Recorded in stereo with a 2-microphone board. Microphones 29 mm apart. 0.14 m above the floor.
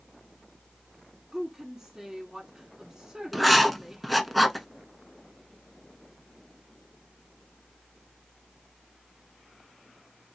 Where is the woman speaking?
20° right (ahead or behind), 1.5 m.